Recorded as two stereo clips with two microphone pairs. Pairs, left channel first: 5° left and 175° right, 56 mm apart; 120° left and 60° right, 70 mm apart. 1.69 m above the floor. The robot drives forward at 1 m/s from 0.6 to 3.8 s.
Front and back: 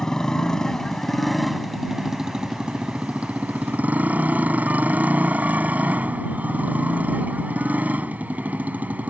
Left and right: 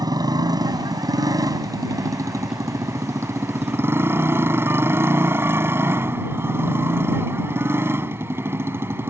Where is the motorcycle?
75° right; by 9.1 s 115° right.